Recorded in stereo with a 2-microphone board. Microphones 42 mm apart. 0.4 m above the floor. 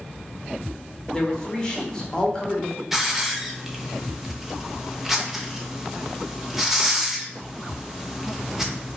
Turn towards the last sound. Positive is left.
turn(degrees=-5)  # may be behind; listen again after turning